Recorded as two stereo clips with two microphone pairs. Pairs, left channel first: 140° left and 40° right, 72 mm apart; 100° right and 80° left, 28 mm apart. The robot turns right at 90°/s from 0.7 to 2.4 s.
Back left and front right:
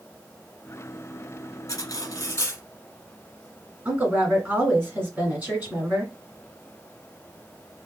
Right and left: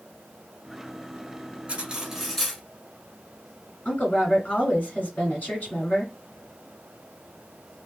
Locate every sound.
1.7 s cutlery clinking: 120° left, 1.2 m; by 2.6 s 175° right, 1.2 m
3.9 s a woman speaking: 105° right, 2.0 m